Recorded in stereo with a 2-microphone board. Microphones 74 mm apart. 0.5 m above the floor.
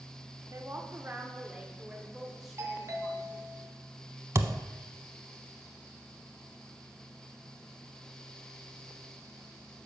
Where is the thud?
40° right (ahead or behind), 0.5 m.